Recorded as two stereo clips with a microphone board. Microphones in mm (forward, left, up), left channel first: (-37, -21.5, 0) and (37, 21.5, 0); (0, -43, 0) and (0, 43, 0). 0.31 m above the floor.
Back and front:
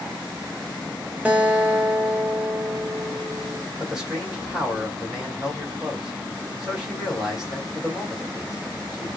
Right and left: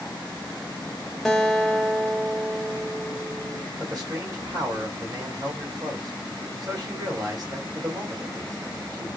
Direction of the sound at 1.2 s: 10° right.